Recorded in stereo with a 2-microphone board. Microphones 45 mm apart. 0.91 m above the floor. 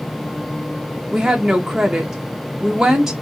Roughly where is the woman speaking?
Centre.